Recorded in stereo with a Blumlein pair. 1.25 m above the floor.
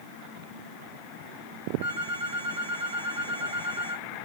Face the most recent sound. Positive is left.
turn(degrees=-65)